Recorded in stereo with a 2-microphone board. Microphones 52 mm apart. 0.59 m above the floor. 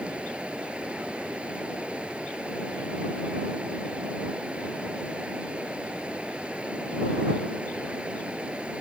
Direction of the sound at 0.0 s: 25° right (ahead or behind).